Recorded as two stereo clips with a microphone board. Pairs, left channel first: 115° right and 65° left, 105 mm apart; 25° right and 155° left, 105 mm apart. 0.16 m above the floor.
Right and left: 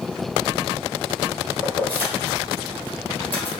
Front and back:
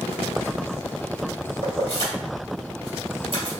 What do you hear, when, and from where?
1.6 s keys jangling: 175° left, 2 m